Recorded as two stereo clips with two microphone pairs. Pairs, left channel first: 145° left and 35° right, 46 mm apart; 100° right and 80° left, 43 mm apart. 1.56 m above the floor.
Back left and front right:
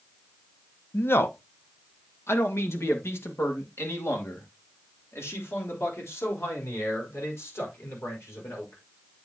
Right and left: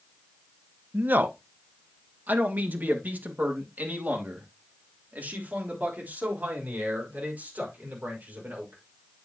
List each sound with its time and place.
0.9 s a man speaking: 115° left, 0.9 m; by 8.8 s 130° left, 5.5 m